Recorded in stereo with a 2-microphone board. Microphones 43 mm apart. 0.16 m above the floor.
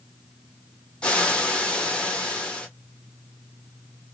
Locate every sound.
1.0 s frying: 25° left (ahead or behind), 1.2 m